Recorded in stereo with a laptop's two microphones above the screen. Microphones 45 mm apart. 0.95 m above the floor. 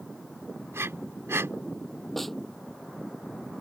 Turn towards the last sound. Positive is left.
turn(degrees=5)  # may be behind; listen again after turning